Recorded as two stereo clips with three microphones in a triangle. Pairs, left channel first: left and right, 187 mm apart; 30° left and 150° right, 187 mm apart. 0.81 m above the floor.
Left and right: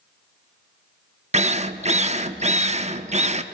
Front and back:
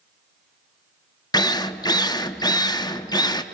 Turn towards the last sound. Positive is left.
turn(degrees=-40)